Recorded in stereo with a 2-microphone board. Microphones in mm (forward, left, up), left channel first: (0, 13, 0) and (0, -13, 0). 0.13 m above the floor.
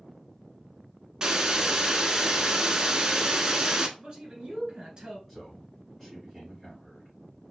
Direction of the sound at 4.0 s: 35° right (ahead or behind).